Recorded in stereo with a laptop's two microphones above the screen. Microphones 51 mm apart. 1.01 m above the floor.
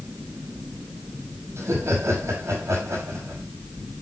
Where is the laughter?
75° right (ahead or behind), 7 m.